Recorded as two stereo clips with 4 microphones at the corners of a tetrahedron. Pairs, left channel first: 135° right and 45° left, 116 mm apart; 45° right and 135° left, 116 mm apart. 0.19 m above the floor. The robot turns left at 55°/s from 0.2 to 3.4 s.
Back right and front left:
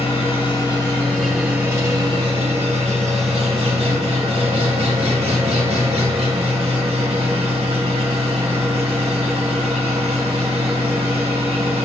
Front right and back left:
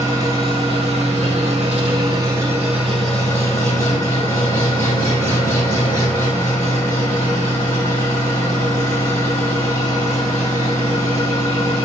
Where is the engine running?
165° right, 3.5 m; by 11.9 s 20° left, 3.5 m.